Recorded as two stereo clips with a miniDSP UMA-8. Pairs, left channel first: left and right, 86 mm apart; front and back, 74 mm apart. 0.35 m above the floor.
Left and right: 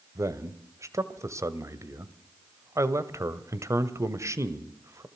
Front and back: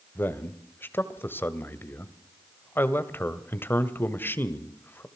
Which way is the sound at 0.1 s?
50° right.